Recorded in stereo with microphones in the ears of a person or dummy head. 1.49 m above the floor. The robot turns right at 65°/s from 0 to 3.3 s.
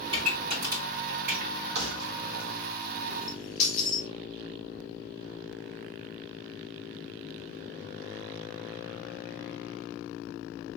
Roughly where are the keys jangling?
Right.